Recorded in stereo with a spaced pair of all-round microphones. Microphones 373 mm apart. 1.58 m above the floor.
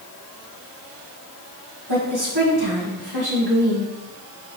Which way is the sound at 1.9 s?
85° right.